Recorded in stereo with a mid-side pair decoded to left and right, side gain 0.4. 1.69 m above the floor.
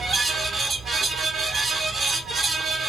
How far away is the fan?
About 0.8 m.